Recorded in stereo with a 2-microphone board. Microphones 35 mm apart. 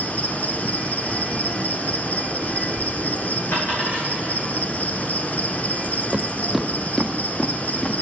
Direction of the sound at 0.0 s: 45° left (ahead or behind).